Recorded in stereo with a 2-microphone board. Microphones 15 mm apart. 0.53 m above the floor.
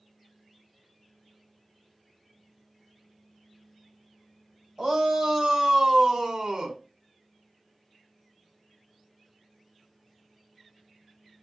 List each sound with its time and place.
4.8 s a shout: 40° right (ahead or behind), 2.5 m; by 6.8 s 50° right (ahead or behind), 1.5 m